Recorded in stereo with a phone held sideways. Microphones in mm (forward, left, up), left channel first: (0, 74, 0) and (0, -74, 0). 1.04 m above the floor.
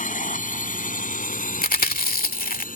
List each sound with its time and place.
0.0 s a drone: 60° left (ahead or behind); by 2.8 s 65° left (ahead or behind)
1.6 s chewing: 75° left (ahead or behind)